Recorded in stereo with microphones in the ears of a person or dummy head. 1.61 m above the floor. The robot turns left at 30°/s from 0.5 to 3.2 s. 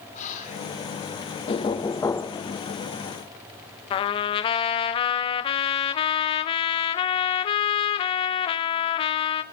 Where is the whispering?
40° left (ahead or behind), 5 m; by 0.7 s 35° left (ahead or behind), 5 m.